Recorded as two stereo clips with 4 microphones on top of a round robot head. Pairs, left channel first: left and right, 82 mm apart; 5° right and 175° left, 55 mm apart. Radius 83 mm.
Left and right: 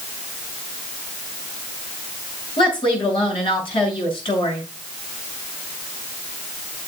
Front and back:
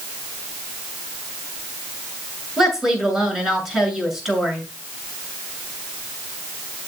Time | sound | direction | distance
2.6 | a woman speaking | 95° left | 7 m